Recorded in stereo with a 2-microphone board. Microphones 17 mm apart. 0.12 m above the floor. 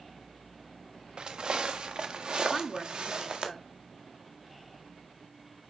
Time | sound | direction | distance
1.2 | footsteps | 50° right (ahead or behind) | 1.1 m
2.5 | a woman speaking | 15° left (ahead or behind) | 1.0 m